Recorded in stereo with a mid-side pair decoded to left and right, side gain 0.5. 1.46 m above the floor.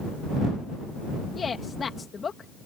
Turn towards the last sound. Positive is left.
turn(degrees=35)